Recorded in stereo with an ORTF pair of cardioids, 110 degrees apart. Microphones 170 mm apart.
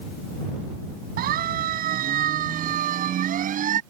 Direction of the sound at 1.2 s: 65° right.